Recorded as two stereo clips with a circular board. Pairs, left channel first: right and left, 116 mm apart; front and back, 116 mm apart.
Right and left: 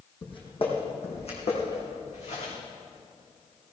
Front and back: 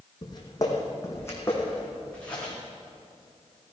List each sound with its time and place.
0.2 s footsteps: 50° right, 3.5 m; by 2.5 s 80° right, 6 m